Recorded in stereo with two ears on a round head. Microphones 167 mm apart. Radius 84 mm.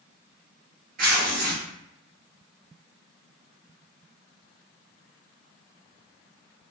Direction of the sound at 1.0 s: 45° right (ahead or behind).